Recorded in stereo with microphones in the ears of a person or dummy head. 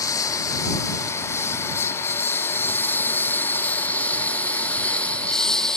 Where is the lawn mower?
15° left (ahead or behind); by 5.8 s centre (ahead or behind).